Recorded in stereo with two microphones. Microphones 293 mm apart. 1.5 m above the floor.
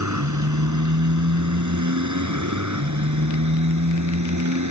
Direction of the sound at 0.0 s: 75° right (ahead or behind).